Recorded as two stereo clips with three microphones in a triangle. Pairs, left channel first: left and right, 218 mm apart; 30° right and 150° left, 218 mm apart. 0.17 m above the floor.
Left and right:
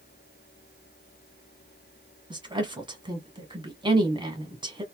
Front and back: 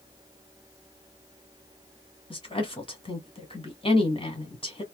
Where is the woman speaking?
55° right, 1.5 m.